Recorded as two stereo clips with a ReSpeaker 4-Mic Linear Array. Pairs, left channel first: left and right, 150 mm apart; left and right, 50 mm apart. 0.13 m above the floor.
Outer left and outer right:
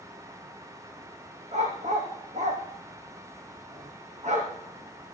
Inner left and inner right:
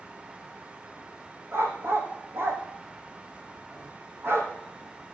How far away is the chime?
No chime in this recording.